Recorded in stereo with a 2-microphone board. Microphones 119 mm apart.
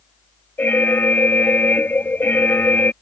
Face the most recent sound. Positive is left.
turn(degrees=20)  # may be behind; listen again after turning